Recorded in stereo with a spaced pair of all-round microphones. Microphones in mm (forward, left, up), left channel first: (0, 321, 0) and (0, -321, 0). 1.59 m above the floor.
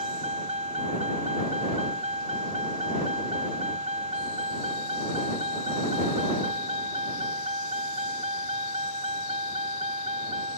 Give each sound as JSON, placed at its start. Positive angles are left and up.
{"t": 0.0, "sound": "a vehicle", "side_deg": -60}